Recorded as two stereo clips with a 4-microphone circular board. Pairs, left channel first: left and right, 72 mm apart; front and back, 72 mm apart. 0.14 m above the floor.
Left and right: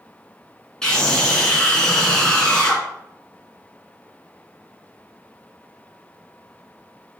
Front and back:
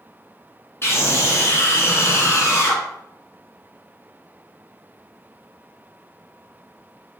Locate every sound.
0.8 s a scream: 15° left, 1.9 m